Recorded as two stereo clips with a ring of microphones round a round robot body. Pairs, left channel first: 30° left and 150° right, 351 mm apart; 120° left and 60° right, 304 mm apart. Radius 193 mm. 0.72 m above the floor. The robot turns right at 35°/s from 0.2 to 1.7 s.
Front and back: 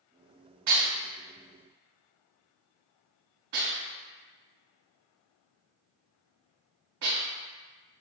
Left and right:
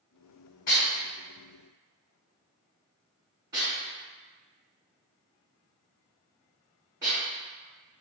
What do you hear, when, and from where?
0.7 s dishes clattering: 175° right, 1.6 m; by 7.2 s 140° right, 1.6 m